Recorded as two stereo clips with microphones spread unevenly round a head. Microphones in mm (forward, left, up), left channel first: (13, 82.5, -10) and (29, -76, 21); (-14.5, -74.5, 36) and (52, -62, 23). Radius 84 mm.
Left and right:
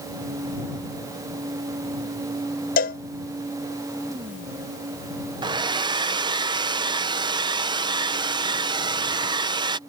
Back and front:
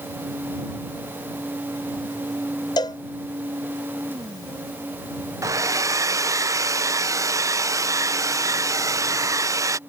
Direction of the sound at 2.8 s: 140° left.